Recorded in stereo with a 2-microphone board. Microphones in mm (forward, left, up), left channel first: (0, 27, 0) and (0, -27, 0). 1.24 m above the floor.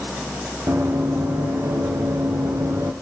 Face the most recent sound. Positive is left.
turn(degrees=-60)  # may be behind; listen again after turning